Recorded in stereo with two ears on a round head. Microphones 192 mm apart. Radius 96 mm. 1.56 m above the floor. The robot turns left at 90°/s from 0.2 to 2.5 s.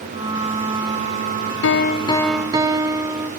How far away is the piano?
About 0.6 m.